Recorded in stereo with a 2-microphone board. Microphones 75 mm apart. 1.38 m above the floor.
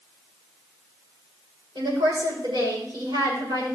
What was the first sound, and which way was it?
A woman speaking, 80° right.